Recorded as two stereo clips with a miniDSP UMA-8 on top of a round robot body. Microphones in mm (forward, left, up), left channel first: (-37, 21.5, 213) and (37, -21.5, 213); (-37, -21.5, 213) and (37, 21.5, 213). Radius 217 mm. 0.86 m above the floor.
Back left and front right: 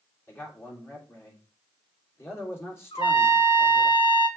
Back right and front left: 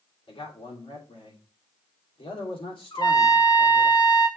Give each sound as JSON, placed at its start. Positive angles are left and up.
{"t": 0.3, "sound": "a man speaking", "azimuth_deg": -145, "distance_m": 3.0}
{"t": 2.9, "sound": "a trumpet", "azimuth_deg": 175, "distance_m": 1.6}